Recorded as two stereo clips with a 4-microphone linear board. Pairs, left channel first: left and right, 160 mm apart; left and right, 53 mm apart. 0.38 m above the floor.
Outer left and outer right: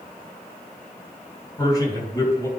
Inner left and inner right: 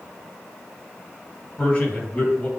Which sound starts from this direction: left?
A man speaking, at 1.6 s.